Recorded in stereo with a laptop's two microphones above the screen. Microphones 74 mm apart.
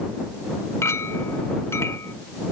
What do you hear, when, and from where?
0.8 s a clink: 40° left (ahead or behind)